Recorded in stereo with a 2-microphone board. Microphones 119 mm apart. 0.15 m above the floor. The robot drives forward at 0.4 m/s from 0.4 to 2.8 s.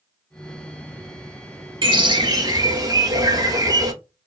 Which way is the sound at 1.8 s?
45° right (ahead or behind).